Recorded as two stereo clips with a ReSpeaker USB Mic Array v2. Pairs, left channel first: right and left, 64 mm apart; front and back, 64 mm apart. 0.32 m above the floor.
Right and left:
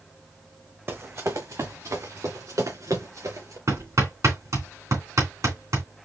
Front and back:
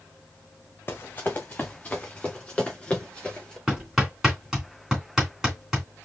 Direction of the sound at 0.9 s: 45° left.